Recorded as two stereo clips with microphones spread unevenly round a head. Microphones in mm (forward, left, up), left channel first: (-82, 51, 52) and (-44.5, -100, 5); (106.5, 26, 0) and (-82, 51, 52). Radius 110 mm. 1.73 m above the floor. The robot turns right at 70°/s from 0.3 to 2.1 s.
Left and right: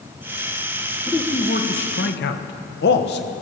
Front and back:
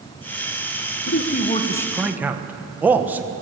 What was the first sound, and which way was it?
A man speaking, 20° left.